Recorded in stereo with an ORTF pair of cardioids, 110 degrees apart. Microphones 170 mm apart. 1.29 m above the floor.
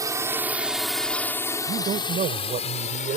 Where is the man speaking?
50° right.